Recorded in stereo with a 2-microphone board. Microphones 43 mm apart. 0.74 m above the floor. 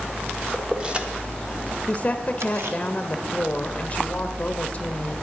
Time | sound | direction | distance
0.5 | keys jangling | 15° right (ahead or behind) | 1.2 m
1.9 | a woman speaking | 30° left (ahead or behind) | 0.7 m